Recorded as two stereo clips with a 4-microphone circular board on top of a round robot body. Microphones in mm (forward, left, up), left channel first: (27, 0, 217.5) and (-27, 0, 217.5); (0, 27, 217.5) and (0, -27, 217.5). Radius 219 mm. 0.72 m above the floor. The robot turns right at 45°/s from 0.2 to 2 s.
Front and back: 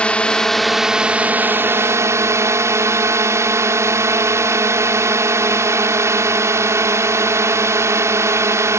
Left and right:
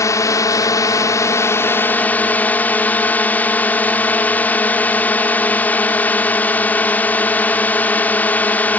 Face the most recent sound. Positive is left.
turn(degrees=150)